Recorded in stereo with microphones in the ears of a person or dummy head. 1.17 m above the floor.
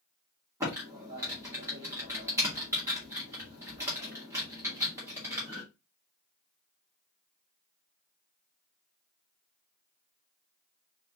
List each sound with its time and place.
0.6 s typing on a keyboard: 10° right (ahead or behind), 1.7 m